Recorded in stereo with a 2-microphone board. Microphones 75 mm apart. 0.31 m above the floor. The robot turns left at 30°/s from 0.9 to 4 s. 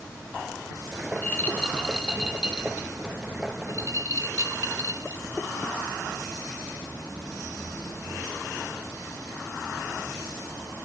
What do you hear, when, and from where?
1.1 s a rattle: 35° left (ahead or behind), 0.9 m; by 5.3 s 55° right (ahead or behind), 0.9 m